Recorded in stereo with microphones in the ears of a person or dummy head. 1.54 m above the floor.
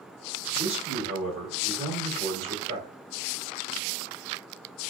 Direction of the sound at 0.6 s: 40° right (ahead or behind).